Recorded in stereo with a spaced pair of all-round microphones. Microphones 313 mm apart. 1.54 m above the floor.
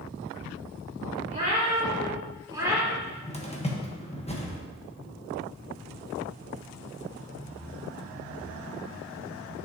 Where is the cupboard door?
20° left (ahead or behind), 1.2 m.